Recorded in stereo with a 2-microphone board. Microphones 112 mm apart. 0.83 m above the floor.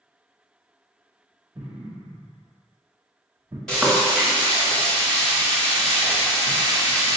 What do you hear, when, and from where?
1.6 s an explosion: 30° right (ahead or behind), 1.2 m
3.7 s frying: 5° left (ahead or behind), 1.4 m